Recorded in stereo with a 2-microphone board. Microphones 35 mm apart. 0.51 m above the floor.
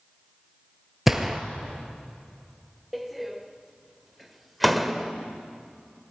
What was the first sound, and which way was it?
A gunshot, 10° right (ahead or behind).